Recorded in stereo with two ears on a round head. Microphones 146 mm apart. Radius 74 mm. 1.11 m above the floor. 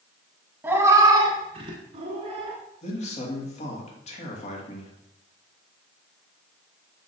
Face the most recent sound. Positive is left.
turn(degrees=45)  # may be behind; listen again after turning